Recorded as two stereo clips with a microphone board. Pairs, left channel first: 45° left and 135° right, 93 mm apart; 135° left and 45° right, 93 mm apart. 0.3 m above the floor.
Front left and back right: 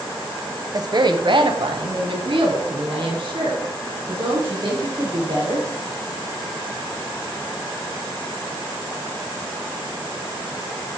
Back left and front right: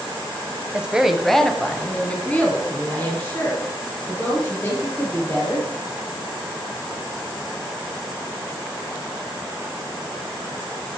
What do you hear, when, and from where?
0.7 s a woman speaking: 115° right, 1.2 m; by 5.7 s 160° right, 6 m